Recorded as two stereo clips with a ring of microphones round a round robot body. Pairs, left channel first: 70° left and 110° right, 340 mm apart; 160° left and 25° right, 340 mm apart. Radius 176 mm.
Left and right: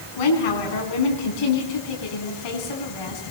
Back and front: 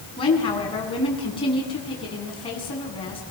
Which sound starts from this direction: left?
A woman speaking, at 0.2 s.